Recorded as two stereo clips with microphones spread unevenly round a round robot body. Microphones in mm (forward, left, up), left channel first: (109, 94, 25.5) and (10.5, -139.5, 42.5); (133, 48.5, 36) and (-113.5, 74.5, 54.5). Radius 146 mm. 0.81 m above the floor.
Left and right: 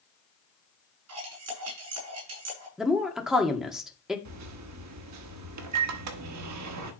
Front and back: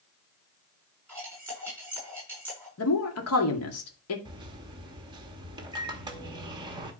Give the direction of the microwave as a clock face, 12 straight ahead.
4 o'clock.